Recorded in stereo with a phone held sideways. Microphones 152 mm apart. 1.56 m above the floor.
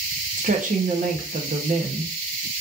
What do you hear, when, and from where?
0.4 s a woman speaking: 60° right (ahead or behind), 1.0 m